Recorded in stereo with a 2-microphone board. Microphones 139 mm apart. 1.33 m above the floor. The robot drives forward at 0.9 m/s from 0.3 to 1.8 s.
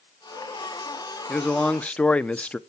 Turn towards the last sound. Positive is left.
turn(degrees=10)  # may be behind; listen again after turning